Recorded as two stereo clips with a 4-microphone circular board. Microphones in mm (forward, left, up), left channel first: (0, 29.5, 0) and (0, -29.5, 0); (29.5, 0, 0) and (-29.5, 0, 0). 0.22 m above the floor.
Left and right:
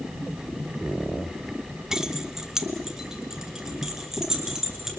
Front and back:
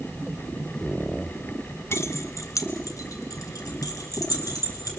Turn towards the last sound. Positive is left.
turn(degrees=-10)